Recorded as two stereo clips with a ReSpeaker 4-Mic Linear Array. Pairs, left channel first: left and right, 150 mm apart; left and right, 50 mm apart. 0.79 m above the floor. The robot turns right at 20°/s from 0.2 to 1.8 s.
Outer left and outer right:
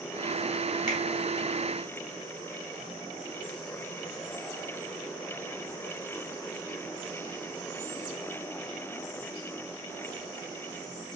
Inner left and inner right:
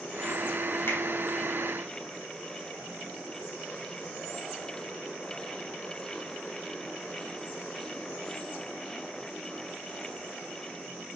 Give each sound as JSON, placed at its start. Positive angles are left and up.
{"t": 0.9, "sound": "a finger snap", "side_deg": 65, "distance_m": 3.5}